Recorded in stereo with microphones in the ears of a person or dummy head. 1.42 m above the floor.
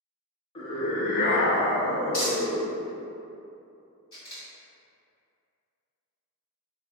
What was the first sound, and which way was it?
A scream, 35° left (ahead or behind).